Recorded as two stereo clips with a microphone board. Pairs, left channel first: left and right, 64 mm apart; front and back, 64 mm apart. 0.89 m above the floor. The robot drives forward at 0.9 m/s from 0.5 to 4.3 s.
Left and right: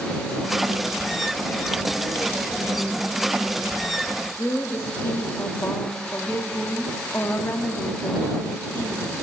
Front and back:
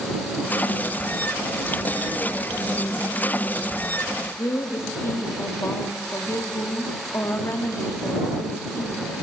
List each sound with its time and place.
4.4 s a woman speaking: 45° left, 1.2 m